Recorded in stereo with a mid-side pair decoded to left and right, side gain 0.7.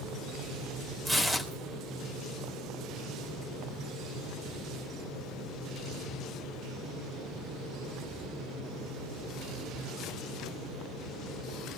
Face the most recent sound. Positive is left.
turn(degrees=-15)